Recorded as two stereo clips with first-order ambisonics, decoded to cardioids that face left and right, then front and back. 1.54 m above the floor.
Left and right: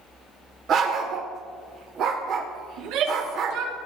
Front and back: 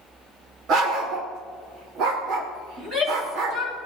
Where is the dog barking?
140° right, 2 m.